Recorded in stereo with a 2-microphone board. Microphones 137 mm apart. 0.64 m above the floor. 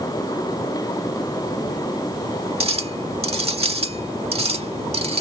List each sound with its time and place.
2.6 s a clink: 45° right (ahead or behind)